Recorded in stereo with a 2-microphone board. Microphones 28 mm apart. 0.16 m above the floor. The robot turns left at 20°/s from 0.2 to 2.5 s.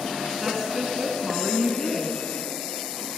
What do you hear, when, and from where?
0.4 s a woman speaking: 155° right, 1.3 m; by 2.2 s 170° left, 1.3 m